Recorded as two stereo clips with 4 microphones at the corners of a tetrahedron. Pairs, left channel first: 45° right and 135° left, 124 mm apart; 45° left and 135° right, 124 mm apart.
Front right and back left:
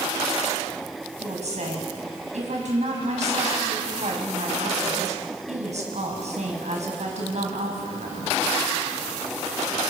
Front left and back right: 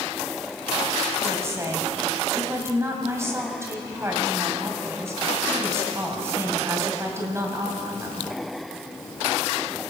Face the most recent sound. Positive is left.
turn(degrees=155)